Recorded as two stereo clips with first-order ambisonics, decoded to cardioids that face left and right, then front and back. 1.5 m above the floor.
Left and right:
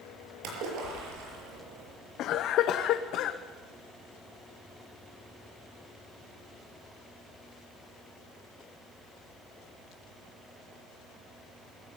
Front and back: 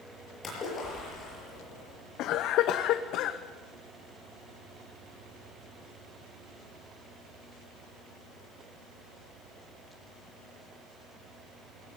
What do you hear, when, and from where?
0.4 s a splash: 70° right, 6.5 m
2.2 s a cough: 45° left, 0.8 m